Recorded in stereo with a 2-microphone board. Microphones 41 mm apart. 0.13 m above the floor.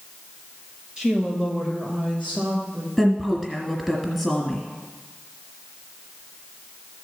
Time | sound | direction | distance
1.0 | a woman speaking | 25° right (ahead or behind) | 2 m
3.0 | a woman speaking | 5° right (ahead or behind) | 1.5 m